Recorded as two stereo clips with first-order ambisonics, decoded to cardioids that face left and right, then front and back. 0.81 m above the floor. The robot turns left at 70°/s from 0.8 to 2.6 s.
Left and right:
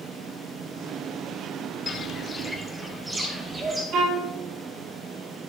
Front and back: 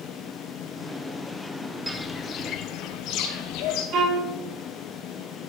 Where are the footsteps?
100° left, 0.7 m; by 3.8 s 15° right, 1.8 m.